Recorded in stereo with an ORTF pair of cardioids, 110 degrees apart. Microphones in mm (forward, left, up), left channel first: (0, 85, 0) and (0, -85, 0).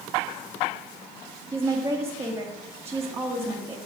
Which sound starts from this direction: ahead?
A woman speaking, at 1.5 s.